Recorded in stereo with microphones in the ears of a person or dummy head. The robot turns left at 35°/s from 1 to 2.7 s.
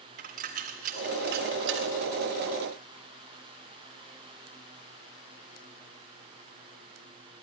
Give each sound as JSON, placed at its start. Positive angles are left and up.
{"t": 0.2, "sound": "a dropped coin", "side_deg": -40, "distance_m": 1.9}